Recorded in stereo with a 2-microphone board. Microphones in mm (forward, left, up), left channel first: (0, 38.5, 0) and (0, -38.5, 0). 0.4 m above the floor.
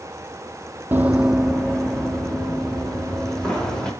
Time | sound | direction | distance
0.9 | running footsteps | 30° right (ahead or behind) | 0.6 m